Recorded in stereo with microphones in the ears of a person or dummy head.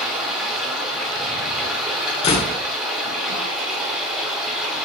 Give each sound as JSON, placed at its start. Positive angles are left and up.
{"t": 0.0, "sound": "running water", "side_deg": -5, "distance_m": 2.5}
{"t": 2.2, "sound": "a door slam", "side_deg": 30, "distance_m": 1.3}